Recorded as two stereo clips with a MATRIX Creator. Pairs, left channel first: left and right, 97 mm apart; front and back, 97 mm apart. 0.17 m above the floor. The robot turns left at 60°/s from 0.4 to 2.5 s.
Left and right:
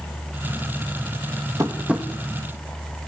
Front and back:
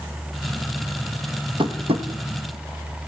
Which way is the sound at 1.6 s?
145° right.